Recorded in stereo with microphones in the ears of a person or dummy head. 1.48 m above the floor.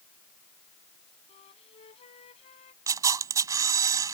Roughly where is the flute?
Left.